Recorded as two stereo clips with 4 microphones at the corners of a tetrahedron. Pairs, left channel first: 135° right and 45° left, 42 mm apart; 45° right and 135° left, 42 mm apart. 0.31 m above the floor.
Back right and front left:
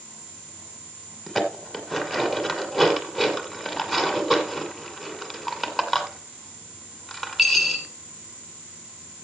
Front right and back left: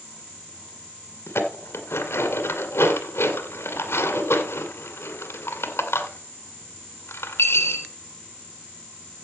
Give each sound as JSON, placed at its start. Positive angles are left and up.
{"t": 1.3, "sound": "dishes clattering", "azimuth_deg": -40, "distance_m": 1.9}